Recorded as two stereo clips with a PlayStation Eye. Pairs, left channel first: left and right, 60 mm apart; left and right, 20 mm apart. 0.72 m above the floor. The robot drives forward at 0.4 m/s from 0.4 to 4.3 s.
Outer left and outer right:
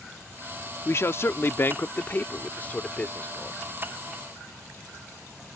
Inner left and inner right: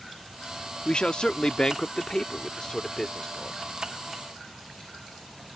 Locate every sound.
0.8 s a man speaking: 50° left (ahead or behind); by 3.6 s 25° left (ahead or behind)